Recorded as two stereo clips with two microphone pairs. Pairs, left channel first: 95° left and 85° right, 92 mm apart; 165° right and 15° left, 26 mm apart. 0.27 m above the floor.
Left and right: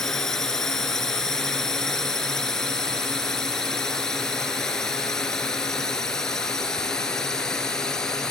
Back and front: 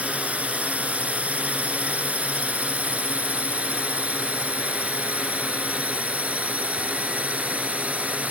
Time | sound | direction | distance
0.0 | a drone | 10° left | ?